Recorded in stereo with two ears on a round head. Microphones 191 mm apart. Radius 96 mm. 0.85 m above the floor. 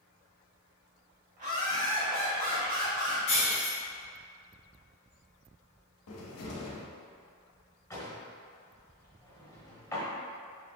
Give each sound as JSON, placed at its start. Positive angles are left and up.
{"t": 1.4, "sound": "laughter", "side_deg": -35, "distance_m": 1.6}
{"t": 3.3, "sound": "breaking glass", "side_deg": 35, "distance_m": 1.8}
{"t": 6.1, "sound": "a cupboard door", "side_deg": 75, "distance_m": 0.7}
{"t": 7.9, "sound": "a drawer", "side_deg": 15, "distance_m": 1.0}